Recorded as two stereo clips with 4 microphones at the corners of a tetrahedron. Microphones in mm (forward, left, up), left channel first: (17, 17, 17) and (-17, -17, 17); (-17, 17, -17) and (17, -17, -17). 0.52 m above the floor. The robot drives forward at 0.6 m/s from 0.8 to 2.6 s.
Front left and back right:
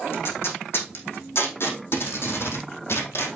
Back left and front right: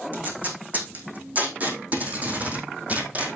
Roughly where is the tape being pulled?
Ahead.